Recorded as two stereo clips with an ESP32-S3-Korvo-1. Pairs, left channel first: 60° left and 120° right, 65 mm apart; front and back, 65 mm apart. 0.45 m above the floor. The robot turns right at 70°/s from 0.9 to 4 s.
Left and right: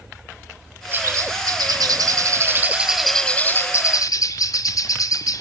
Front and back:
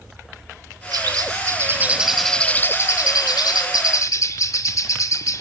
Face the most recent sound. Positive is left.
turn(degrees=35)